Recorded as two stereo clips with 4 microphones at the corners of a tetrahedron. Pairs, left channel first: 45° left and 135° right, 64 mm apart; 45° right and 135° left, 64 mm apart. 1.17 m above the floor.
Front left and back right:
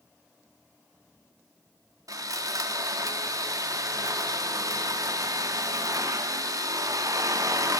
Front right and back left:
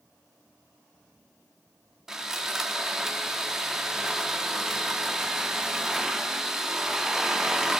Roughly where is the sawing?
Behind right.